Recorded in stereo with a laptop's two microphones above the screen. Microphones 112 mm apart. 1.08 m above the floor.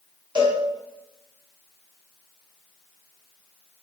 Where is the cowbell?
45° right (ahead or behind), 1.5 m.